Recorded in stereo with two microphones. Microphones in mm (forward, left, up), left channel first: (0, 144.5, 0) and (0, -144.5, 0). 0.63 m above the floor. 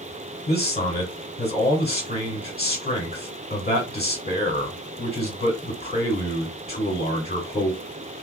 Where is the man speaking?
35° left (ahead or behind), 1.2 m.